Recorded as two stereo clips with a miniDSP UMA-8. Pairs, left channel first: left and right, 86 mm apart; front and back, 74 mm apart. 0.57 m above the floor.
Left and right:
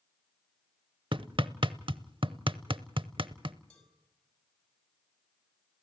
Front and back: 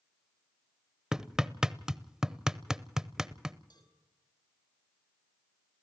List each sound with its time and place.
1.1 s hammering: 100° right, 0.7 m
3.7 s a cowbell: 10° left, 5 m